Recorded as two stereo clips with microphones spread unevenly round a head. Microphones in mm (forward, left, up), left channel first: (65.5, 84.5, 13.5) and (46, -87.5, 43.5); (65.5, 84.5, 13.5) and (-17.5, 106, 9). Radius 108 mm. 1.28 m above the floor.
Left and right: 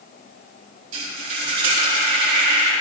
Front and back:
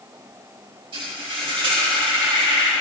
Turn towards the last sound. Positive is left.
turn(degrees=-135)